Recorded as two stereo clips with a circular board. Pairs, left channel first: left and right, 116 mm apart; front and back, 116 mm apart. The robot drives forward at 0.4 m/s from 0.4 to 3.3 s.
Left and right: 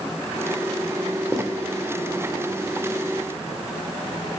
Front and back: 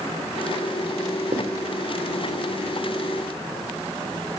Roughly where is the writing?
Behind.